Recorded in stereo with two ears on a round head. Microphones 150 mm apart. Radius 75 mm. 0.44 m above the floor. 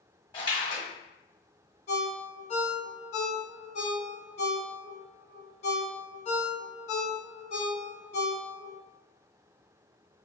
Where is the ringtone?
40° left (ahead or behind), 0.8 m.